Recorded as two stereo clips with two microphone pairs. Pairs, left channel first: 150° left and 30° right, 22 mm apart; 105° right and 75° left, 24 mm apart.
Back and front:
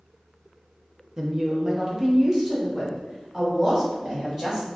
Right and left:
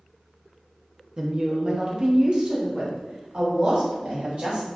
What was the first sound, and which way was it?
A woman speaking, 20° left.